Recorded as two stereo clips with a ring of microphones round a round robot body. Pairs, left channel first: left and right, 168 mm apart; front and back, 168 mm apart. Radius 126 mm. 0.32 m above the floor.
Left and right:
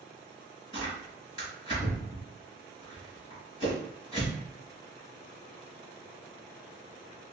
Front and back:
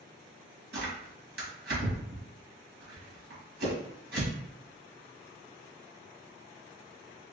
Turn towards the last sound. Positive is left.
turn(degrees=-160)